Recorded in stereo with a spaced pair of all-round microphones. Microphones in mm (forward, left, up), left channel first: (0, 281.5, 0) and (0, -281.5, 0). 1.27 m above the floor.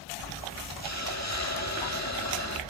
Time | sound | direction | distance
0.8 | a hiss | 30° left (ahead or behind) | 1.5 m